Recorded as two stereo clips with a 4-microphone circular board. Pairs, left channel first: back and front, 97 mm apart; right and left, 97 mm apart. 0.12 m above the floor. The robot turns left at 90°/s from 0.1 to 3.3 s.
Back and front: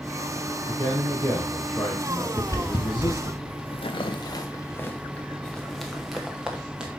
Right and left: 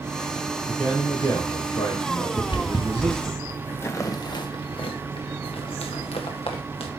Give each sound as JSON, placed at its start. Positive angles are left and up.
{"t": 0.7, "sound": "a man speaking", "azimuth_deg": -5, "distance_m": 2.5}
{"t": 2.4, "sound": "footsteps", "azimuth_deg": -115, "distance_m": 1.1}